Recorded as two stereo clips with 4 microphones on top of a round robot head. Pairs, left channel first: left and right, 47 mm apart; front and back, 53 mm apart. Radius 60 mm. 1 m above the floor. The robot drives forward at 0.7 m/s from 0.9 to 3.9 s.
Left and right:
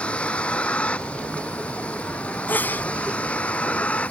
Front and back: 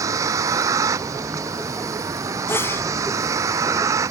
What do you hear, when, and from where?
0.0 s a vehicle: 160° left; by 4.1 s 155° left
2.5 s a sneeze: 40° left; by 2.9 s 45° left